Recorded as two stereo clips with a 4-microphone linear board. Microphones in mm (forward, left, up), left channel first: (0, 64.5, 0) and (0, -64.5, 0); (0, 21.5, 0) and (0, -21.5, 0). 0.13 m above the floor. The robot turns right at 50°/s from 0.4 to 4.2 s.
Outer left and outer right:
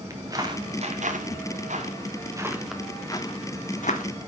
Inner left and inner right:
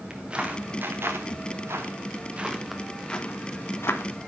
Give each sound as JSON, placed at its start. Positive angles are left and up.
{"t": 0.1, "sound": "footsteps", "side_deg": -25, "distance_m": 2.0}